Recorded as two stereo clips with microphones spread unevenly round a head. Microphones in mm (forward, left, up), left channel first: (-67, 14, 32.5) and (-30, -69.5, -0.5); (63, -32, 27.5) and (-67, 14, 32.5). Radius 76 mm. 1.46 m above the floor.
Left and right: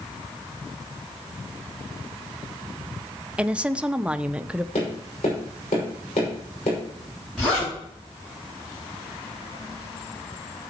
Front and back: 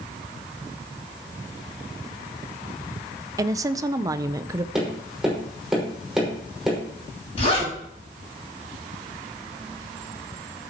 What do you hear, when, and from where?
3.4 s a woman speaking: 135° right, 0.7 m
4.8 s tapping: 75° left, 5.5 m
7.4 s a zipper: 30° left, 8 m